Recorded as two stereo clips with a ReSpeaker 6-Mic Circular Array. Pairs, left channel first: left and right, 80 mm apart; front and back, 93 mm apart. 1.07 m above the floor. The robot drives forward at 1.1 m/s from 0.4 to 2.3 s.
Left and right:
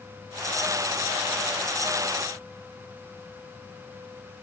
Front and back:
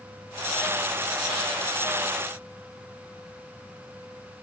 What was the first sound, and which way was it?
Only background noise.